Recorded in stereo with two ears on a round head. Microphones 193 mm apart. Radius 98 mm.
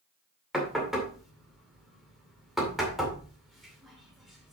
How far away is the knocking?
About 2 m.